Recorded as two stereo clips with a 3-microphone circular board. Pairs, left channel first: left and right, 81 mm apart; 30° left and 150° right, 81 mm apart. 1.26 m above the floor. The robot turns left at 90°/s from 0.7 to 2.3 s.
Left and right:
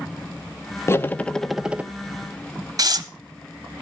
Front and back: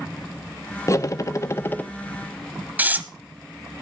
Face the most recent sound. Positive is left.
turn(degrees=-90)